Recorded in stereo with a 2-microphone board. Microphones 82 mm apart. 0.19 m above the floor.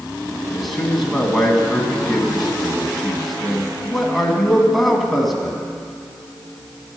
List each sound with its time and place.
0.5 s a man speaking: centre (ahead or behind), 1.9 m